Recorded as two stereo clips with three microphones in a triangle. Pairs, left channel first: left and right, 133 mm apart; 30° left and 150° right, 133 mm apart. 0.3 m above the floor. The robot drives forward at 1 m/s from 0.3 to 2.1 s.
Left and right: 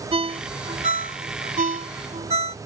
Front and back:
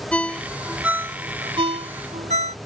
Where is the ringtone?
50° right; by 2.6 s 125° right.